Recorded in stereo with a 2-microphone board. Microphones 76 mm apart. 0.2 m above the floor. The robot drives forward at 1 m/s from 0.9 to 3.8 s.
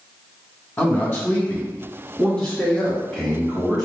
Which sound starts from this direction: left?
A man speaking, at 0.8 s.